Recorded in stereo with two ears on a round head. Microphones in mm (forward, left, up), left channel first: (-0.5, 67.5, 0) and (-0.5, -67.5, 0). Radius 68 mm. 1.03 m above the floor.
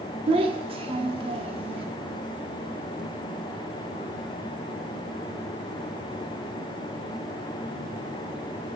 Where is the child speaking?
35° right (ahead or behind), 1.0 m.